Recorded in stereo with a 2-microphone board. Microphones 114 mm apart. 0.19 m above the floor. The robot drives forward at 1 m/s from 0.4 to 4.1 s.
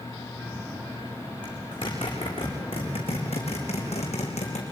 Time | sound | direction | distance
1.4 | a zipper | 40° left (ahead or behind) | 5 m